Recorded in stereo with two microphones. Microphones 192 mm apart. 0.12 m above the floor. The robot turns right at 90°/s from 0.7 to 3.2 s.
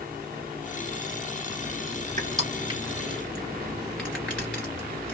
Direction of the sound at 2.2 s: 45° right (ahead or behind).